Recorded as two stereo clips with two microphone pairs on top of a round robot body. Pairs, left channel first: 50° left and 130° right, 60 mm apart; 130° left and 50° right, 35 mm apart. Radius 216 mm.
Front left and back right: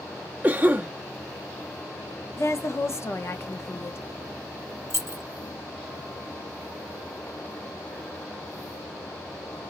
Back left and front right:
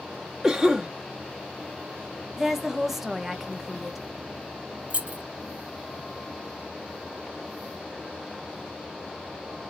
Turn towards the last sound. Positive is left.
turn(degrees=-100)